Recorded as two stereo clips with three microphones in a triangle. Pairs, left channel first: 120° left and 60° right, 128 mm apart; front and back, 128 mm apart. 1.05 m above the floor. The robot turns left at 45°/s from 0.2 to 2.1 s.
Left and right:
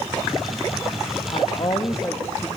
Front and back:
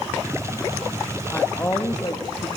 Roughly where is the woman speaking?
Left.